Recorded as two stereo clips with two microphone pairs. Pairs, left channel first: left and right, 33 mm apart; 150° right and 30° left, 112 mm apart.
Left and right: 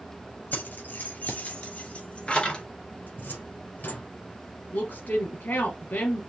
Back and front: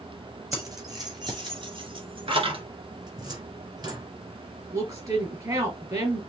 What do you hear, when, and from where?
0.5 s keys jangling: 80° left, 2 m; by 2.6 s 25° left, 1.8 m
3.1 s a cupboard door: 75° left, 2 m
4.7 s a woman speaking: 80° left, 3 m